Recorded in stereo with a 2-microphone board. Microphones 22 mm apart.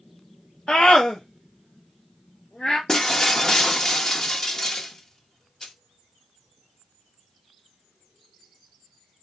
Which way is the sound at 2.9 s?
25° left (ahead or behind).